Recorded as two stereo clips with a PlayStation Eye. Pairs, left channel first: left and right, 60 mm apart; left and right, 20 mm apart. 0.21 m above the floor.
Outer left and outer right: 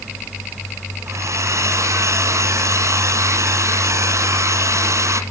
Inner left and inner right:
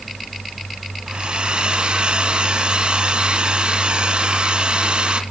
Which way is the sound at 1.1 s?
60° right (ahead or behind).